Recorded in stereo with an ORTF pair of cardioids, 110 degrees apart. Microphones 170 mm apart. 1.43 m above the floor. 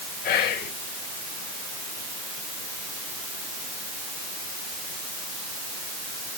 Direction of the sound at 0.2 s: 70° left.